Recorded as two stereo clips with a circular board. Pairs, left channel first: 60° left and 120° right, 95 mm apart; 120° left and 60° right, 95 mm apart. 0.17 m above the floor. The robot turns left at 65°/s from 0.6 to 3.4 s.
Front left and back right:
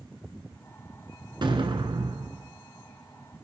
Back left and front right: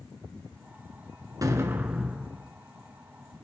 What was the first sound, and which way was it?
An explosion, 100° right.